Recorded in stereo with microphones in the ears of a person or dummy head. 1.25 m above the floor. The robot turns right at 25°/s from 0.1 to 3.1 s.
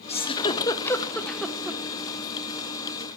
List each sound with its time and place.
0.1 s a giggle: 35° left (ahead or behind), 0.7 m; by 1.8 s 10° right (ahead or behind), 0.7 m